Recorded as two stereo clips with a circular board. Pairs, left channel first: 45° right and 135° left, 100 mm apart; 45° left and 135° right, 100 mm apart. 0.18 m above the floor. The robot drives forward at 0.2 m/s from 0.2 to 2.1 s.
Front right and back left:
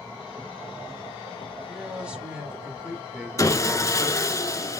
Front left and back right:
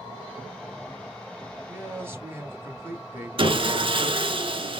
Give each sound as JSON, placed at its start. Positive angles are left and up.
{"t": 1.7, "sound": "a man speaking", "azimuth_deg": -150, "distance_m": 1.0}
{"t": 3.4, "sound": "sawing", "azimuth_deg": -105, "distance_m": 0.6}